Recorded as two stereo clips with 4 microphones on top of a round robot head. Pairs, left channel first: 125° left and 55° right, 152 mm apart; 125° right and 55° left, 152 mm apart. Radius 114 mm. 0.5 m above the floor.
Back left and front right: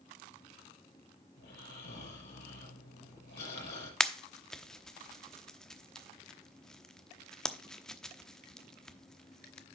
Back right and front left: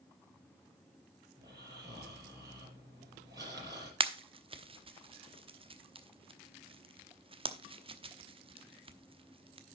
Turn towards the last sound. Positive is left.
turn(degrees=40)